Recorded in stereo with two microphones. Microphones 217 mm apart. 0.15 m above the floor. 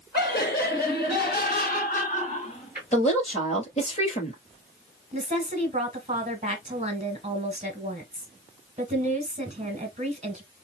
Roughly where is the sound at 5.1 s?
Right.